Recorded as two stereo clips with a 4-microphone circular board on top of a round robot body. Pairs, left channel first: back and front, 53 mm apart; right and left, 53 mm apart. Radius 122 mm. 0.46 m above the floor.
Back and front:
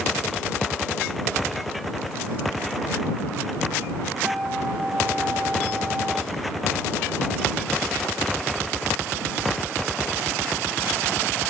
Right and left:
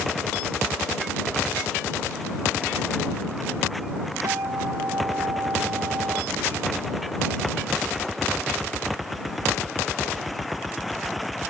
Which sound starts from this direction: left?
A guitar, at 4.2 s.